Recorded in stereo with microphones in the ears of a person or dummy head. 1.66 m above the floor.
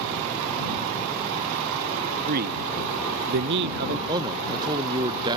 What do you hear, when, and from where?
2.3 s a man speaking: 45° right (ahead or behind); by 4.0 s 50° right (ahead or behind)
4.1 s a man speaking: 20° right (ahead or behind)